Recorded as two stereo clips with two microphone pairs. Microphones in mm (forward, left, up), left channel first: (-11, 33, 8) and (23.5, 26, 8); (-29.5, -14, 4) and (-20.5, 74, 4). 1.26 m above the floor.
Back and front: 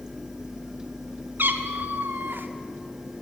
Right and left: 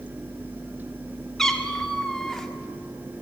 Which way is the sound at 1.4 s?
10° right.